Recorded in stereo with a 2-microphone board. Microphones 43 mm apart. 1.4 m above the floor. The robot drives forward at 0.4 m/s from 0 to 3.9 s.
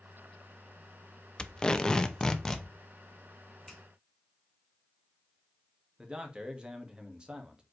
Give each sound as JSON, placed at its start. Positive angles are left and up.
{"t": 1.4, "sound": "tape being pulled", "side_deg": 20, "distance_m": 0.6}
{"t": 3.7, "sound": "a finger snap", "side_deg": 10, "distance_m": 2.5}
{"t": 6.0, "sound": "a man speaking", "side_deg": -20, "distance_m": 1.8}